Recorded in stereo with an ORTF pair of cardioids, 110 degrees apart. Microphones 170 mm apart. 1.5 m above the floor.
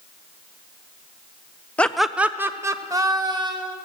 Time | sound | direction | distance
1.8 | laughter | 10° left | 0.7 m